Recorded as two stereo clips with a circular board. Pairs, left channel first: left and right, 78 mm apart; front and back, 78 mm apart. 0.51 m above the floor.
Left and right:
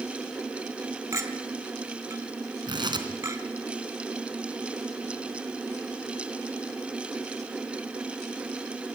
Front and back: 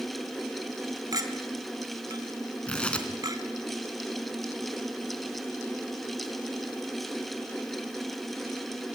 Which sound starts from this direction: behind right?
A clink, at 1.1 s.